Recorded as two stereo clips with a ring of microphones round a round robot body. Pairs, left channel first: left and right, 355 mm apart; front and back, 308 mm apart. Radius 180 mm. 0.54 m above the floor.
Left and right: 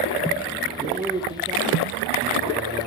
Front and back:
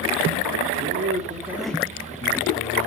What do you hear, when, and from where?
0.8 s a man speaking: 165° right, 1.3 m; by 2.9 s 20° right, 1.5 m